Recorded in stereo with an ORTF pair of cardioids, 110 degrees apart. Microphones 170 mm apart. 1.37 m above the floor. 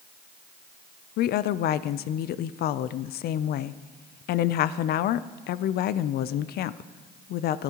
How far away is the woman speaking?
About 0.5 m.